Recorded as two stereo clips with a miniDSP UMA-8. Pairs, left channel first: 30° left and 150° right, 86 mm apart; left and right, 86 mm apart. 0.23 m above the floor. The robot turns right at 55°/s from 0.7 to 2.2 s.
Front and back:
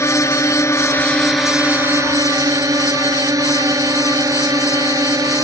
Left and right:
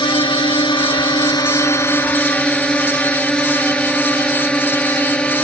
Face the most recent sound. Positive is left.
turn(degrees=165)